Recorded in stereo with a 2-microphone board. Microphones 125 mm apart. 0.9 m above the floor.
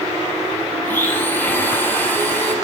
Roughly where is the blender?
Centre.